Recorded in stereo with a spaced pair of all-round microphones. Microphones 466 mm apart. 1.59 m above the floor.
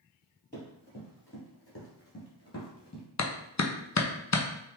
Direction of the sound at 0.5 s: 20° left (ahead or behind).